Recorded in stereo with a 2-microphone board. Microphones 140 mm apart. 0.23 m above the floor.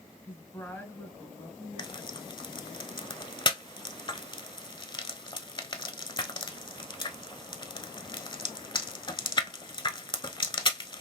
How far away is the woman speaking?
About 1.5 m.